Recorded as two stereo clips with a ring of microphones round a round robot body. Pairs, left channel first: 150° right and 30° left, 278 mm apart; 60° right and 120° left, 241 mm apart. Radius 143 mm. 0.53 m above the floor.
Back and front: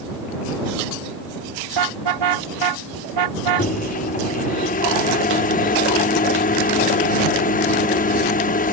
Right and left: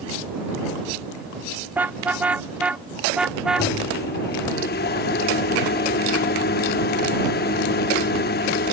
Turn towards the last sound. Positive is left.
turn(degrees=-95)